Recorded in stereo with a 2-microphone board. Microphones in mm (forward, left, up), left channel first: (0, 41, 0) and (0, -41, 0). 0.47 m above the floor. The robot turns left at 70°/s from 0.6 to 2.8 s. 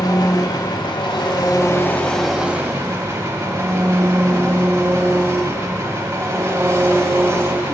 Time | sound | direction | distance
0.0 | an engine running | 120° left | 1.1 m